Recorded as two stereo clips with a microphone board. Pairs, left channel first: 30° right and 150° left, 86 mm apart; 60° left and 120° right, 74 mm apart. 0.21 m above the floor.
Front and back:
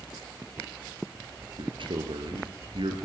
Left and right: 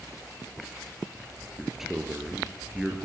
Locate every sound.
1.6 s a man speaking: 155° left, 3.5 m